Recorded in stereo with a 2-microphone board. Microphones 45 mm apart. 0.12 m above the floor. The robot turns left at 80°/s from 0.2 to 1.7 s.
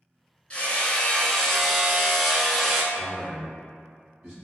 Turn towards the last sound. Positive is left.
turn(degrees=5)  # may be behind; listen again after turning